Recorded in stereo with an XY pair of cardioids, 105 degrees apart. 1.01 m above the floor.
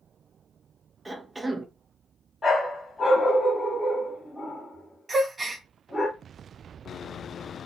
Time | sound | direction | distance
1.1 | a cough | 20° right | 0.5 m
2.4 | a dog barking | 25° left | 1.4 m
5.1 | a gasp | 25° right | 0.6 m